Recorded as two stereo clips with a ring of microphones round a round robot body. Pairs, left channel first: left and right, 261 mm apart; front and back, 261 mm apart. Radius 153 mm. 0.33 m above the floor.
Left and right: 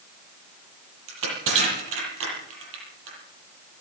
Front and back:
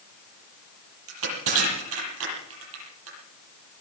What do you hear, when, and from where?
1.1 s crushing: 135° right, 9.5 m